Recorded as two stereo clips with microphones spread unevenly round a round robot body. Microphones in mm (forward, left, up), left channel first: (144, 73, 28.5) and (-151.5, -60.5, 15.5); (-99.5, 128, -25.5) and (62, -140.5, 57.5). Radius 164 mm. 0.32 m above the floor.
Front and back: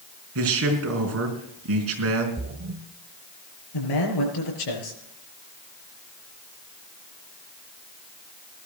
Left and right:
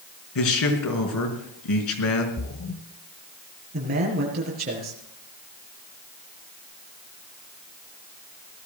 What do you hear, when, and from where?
0.3 s a man speaking: 160° left, 4.5 m
2.4 s a splash: 160° left, 0.8 m
3.7 s a man speaking: 5° left, 5.5 m